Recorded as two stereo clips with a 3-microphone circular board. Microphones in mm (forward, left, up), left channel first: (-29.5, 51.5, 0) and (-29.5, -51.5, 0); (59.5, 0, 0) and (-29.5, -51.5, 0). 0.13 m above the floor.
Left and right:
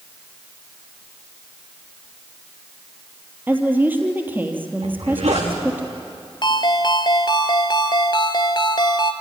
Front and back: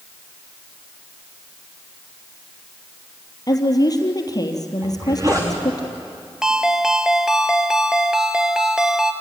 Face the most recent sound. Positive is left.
turn(degrees=130)